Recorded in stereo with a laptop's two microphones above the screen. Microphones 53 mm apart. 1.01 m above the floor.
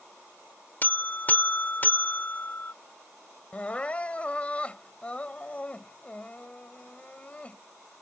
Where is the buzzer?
35° left (ahead or behind).